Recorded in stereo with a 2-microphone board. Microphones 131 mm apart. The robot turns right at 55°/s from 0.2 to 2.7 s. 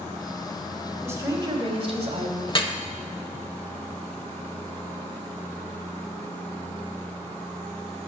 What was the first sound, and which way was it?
A woman speaking, 155° right.